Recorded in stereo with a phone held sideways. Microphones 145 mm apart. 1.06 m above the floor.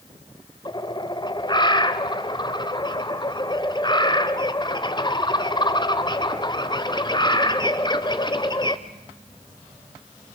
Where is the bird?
30° left (ahead or behind), 1.1 m.